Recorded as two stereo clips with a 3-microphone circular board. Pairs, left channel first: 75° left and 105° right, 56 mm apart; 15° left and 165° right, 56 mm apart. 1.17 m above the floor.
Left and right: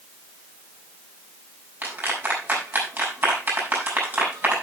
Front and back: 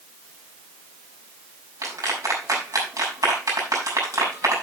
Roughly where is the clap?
Behind.